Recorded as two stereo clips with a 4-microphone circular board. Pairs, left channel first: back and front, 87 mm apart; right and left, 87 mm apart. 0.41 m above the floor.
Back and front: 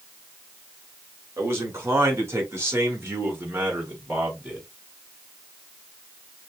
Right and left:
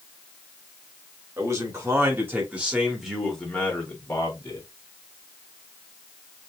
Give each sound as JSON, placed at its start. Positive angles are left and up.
{"t": 1.4, "sound": "a man speaking", "azimuth_deg": 50, "distance_m": 1.9}